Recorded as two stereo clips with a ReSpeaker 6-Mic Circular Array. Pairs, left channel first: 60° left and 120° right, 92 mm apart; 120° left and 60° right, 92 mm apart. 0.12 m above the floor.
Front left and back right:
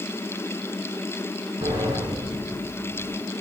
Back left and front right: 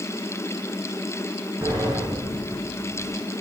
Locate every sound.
1.6 s a sliding door: 125° right, 3 m